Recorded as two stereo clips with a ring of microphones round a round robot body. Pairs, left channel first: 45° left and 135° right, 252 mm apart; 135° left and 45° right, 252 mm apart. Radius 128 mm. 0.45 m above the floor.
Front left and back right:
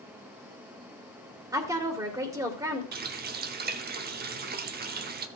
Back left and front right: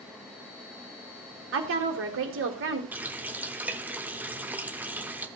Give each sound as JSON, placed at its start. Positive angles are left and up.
{"t": 1.5, "sound": "a woman speaking", "azimuth_deg": -60, "distance_m": 1.7}
{"t": 2.9, "sound": "a running tap", "azimuth_deg": -125, "distance_m": 0.8}